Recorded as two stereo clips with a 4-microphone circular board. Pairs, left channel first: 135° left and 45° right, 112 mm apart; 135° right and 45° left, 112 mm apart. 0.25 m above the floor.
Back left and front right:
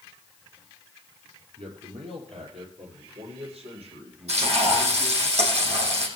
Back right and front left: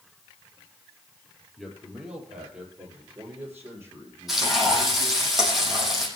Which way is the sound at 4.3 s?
40° right.